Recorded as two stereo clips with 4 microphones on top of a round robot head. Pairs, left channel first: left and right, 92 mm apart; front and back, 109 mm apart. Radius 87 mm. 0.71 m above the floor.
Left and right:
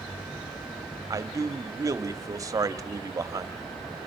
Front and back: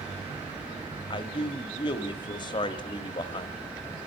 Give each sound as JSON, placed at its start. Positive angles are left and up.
{"t": 1.1, "sound": "a man speaking", "azimuth_deg": -40, "distance_m": 1.7}